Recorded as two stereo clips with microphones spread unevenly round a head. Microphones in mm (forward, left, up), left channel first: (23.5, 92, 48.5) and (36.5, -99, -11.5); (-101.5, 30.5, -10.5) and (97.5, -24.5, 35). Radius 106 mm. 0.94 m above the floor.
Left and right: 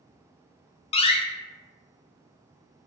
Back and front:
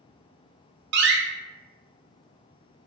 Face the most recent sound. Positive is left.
turn(degrees=30)